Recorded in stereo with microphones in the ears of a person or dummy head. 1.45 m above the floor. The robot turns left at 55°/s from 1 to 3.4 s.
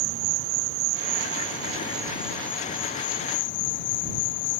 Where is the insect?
105° right; by 4.6 s 120° left.